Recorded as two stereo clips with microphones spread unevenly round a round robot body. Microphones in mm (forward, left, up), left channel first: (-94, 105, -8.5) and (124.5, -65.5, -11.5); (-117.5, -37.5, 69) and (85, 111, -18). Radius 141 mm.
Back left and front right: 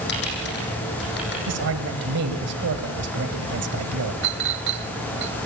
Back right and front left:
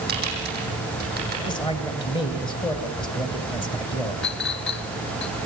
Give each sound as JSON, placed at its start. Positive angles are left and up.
{"t": 0.1, "sound": "typing on a keyboard", "azimuth_deg": 90, "distance_m": 8.5}
{"t": 1.5, "sound": "a man speaking", "azimuth_deg": -60, "distance_m": 2.0}
{"t": 4.2, "sound": "a clink", "azimuth_deg": -85, "distance_m": 1.0}